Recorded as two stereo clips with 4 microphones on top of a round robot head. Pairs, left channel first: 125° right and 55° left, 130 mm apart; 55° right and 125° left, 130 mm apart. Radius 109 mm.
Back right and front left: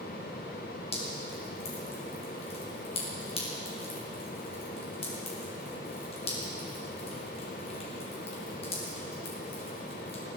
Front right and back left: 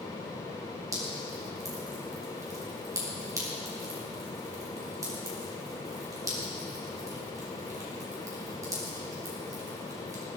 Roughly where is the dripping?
Behind.